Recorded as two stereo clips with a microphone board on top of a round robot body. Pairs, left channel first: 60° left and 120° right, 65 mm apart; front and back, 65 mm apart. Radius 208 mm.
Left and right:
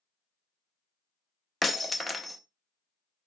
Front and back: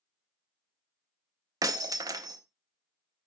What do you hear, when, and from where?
1.6 s breaking glass: 150° left, 0.6 m